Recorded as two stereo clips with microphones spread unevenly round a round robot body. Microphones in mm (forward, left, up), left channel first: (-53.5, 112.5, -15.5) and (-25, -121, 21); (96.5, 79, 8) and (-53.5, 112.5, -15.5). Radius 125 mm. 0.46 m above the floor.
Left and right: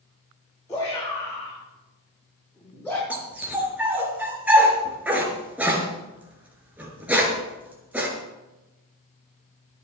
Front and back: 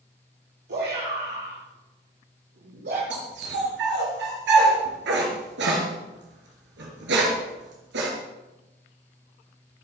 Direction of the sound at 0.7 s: 175° left.